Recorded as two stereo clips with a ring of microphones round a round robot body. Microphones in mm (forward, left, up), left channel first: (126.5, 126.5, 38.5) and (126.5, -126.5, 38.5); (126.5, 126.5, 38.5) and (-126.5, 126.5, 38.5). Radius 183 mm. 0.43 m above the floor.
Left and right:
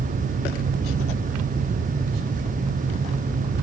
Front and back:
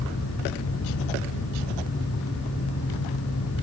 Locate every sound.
Only background noise.